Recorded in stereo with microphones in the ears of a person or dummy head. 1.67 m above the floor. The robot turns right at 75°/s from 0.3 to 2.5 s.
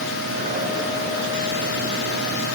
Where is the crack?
I don't hear a crack.